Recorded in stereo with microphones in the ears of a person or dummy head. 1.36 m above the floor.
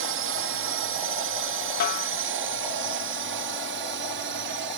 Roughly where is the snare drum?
Left.